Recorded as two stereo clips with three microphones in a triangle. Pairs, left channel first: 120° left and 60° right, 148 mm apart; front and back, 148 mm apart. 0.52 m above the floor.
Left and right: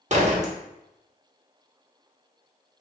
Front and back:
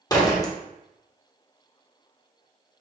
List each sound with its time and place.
0.1 s a door slam: 60° right, 1.0 m